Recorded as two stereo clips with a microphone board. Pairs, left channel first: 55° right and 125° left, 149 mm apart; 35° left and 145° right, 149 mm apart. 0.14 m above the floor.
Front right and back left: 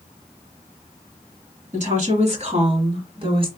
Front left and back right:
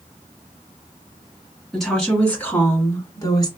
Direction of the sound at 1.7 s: 125° left.